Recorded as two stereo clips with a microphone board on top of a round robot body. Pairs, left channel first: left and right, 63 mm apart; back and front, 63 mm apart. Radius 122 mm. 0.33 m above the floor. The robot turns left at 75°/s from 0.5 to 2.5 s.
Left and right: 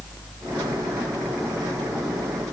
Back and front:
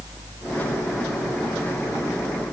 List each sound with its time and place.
Only background noise.